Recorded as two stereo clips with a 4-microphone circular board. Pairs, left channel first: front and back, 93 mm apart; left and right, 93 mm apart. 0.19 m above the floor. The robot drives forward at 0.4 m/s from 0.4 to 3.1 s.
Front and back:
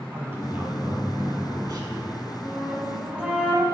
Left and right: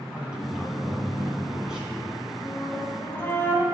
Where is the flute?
80° left, 1.0 m; by 3.6 s 115° left, 1.0 m.